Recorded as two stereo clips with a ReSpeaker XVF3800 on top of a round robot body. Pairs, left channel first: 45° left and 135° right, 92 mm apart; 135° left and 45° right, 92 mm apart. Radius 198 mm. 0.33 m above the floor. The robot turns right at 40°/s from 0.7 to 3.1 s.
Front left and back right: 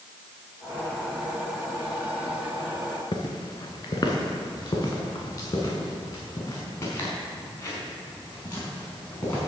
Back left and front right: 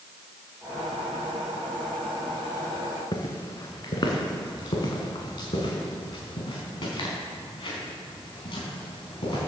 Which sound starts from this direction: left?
Footsteps, at 3.1 s.